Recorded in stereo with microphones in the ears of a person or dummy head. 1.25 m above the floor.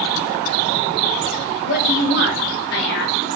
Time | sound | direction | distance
1.6 | a woman speaking | 45° left (ahead or behind) | 2.5 m